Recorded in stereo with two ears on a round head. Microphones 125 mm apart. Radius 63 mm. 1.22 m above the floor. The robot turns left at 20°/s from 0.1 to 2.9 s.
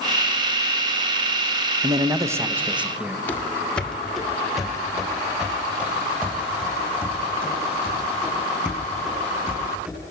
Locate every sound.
1.8 s a man speaking: 30° right (ahead or behind), 0.9 m; by 3.2 s 5° right (ahead or behind), 0.9 m
3.3 s running footsteps: 15° left (ahead or behind), 1.5 m; by 10.1 s 15° right (ahead or behind), 6.5 m